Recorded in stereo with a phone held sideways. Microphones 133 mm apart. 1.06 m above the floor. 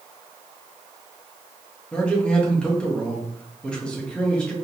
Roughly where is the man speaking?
Centre.